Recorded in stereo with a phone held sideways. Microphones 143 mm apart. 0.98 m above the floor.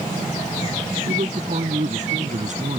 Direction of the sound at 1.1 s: 55° right (ahead or behind).